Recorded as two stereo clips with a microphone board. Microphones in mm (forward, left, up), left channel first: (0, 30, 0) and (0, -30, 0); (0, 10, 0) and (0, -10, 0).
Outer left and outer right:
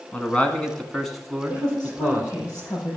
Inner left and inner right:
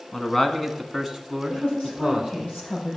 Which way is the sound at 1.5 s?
60° left (ahead or behind).